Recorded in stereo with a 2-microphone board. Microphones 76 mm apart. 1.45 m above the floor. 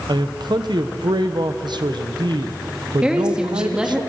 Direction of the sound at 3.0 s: 10° right (ahead or behind).